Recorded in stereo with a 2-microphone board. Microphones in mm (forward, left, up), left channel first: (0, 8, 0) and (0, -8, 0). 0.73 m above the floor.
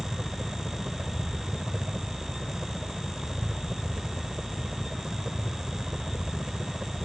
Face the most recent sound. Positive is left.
turn(degrees=-65)  # may be behind; listen again after turning